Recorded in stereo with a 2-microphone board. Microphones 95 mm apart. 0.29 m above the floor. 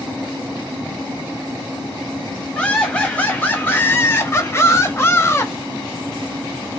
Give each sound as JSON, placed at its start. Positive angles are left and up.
{"t": 2.5, "sound": "laughter", "side_deg": 15, "distance_m": 1.3}